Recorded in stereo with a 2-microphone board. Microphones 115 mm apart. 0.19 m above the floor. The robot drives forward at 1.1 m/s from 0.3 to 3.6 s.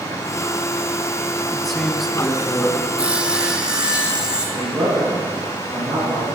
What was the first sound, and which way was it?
A man speaking, centre (ahead or behind).